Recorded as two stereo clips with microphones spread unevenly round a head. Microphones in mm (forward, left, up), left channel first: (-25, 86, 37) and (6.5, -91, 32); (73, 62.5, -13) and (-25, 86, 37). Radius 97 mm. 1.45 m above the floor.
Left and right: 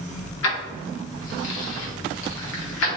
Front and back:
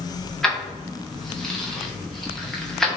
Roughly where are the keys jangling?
Left.